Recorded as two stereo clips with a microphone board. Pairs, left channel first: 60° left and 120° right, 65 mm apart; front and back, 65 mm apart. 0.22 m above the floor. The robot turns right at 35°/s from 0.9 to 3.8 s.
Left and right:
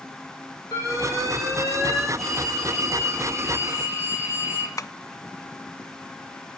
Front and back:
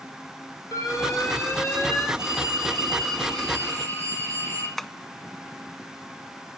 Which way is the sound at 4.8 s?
85° left.